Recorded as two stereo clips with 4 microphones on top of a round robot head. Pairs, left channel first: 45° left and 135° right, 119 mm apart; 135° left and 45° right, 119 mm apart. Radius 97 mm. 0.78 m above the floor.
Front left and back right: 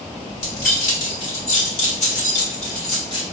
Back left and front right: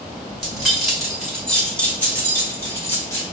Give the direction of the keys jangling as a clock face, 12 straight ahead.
11 o'clock.